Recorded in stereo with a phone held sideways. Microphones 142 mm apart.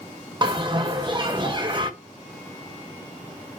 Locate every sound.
0.4 s a bell: 35° right (ahead or behind), 1.2 m